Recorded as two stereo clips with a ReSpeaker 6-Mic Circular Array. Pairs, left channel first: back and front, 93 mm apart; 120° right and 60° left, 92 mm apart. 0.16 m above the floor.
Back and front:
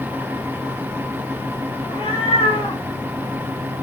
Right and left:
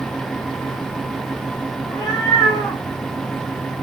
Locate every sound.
1.8 s a cat meowing: 170° right, 7.5 m